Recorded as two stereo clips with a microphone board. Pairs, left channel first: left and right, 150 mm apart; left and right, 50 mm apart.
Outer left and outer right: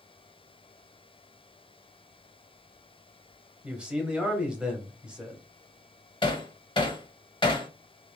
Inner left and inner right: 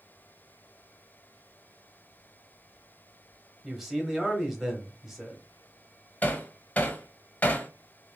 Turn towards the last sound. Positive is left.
turn(degrees=30)  # may be behind; listen again after turning